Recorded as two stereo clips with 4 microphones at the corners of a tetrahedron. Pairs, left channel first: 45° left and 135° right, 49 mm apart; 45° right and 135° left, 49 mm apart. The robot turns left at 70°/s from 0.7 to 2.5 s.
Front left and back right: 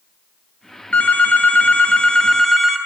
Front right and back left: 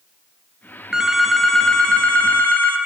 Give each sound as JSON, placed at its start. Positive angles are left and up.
{"t": 0.9, "sound": "a phone ringing", "azimuth_deg": 75, "distance_m": 0.5}